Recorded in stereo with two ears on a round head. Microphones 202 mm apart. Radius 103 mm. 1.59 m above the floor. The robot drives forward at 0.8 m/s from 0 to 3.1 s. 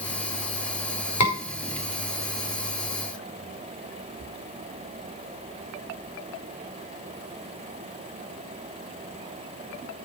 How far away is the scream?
About 5 m.